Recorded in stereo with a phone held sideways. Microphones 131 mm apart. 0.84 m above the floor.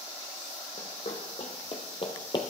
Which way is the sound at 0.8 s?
60° left (ahead or behind).